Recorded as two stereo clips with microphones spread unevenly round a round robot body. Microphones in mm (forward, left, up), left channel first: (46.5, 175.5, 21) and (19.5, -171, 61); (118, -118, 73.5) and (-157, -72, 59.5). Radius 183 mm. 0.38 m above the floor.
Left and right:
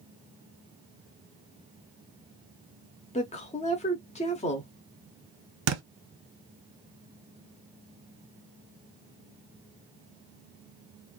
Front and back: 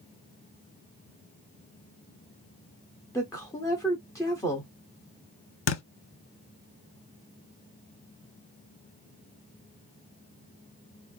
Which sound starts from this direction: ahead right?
A thud, at 5.7 s.